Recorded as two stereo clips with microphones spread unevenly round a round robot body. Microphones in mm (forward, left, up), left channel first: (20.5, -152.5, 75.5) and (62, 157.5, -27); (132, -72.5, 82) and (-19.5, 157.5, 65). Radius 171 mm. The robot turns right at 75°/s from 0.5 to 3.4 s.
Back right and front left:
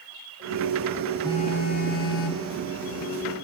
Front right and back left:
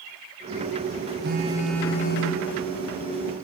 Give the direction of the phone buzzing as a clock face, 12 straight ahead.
6 o'clock.